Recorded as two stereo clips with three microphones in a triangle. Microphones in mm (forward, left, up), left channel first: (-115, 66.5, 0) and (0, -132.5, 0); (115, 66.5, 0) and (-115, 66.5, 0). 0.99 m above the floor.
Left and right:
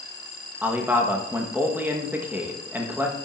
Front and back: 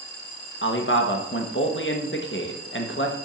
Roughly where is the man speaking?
Ahead.